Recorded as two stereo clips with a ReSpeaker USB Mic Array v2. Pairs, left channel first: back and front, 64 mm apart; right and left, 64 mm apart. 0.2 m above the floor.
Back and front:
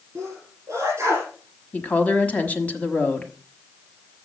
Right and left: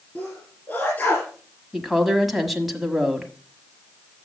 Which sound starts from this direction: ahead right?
A sneeze, at 0.1 s.